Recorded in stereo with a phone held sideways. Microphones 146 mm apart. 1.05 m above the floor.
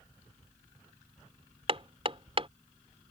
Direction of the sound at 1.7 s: 40° right (ahead or behind).